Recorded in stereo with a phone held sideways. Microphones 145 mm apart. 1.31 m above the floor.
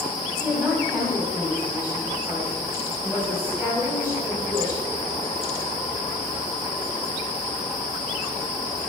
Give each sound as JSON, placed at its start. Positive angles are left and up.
{"t": 0.4, "sound": "a woman speaking", "side_deg": -15, "distance_m": 7.0}